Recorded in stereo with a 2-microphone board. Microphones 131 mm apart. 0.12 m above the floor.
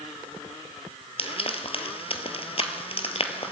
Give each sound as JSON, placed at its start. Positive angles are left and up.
{"t": 1.2, "sound": "frying", "side_deg": 50, "distance_m": 1.2}